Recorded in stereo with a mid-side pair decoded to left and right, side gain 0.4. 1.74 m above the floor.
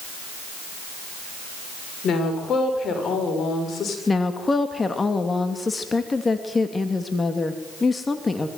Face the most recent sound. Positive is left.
turn(degrees=30)